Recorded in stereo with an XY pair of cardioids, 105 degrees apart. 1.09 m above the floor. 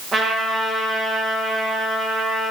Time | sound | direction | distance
0.1 | a trumpet | 35° right | 1.4 m